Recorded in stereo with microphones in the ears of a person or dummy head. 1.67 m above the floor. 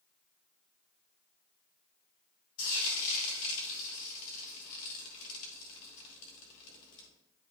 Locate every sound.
2.6 s frying: 45° left (ahead or behind), 2.5 m